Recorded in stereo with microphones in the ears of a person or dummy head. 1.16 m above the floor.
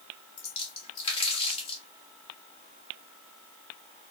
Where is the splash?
40° left (ahead or behind), 1.6 m.